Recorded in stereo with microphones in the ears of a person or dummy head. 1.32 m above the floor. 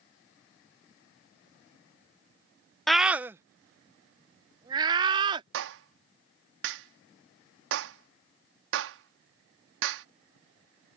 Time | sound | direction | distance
2.9 | a scream | 5° left (ahead or behind) | ?
5.5 | a clap | 70° right (ahead or behind) | ?